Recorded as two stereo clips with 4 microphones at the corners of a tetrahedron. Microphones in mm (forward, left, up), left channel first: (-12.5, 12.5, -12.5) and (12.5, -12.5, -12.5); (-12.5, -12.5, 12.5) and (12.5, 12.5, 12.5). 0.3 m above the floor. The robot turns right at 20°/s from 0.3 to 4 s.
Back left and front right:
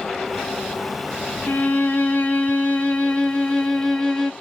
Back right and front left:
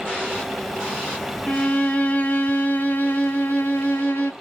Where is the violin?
155° left, 0.8 m; by 4.3 s 155° right, 0.8 m.